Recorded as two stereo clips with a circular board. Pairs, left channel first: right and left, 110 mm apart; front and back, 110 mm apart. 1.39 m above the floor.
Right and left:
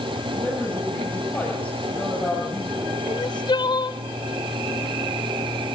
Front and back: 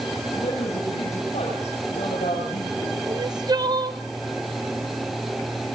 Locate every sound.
0.3 s a woman speaking: 10° right, 8.5 m
3.1 s crying: 130° right, 0.6 m